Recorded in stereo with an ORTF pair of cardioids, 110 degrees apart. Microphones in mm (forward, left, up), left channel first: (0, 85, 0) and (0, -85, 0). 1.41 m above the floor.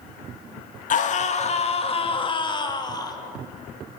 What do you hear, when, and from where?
0.9 s a scream: 50° left, 2.5 m; by 3.2 s 20° left, 3.5 m